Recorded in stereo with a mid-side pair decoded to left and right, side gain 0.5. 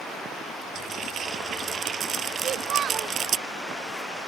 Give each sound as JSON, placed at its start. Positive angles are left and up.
{"t": 0.8, "sound": "frying", "azimuth_deg": -50}
{"t": 2.4, "sound": "a child speaking", "azimuth_deg": -60}